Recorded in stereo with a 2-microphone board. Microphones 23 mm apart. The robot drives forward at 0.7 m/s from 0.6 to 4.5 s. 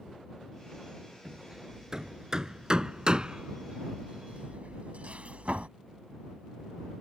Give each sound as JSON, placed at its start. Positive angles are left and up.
{"t": 1.2, "sound": "hammering", "side_deg": -20}